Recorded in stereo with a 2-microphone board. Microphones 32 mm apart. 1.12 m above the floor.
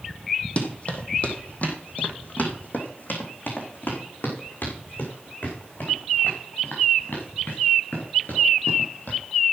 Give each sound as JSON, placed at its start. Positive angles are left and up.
{"t": 0.6, "sound": "running footsteps", "side_deg": 40, "distance_m": 2.5}